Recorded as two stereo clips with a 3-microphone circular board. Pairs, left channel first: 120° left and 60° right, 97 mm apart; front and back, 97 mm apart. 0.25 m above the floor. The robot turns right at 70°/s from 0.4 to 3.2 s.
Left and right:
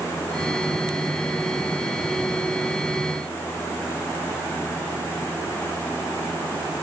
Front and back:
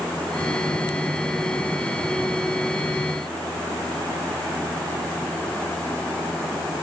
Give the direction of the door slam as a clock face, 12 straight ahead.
I don't hear a door slam.